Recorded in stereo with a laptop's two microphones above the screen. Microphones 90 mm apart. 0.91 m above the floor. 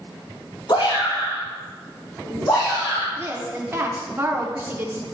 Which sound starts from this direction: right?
A woman speaking, at 3.2 s.